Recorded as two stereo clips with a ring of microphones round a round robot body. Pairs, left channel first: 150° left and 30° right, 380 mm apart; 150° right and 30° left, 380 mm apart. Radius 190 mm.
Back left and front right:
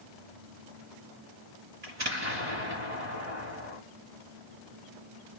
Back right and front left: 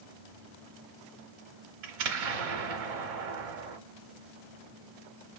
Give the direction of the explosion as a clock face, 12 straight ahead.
11 o'clock.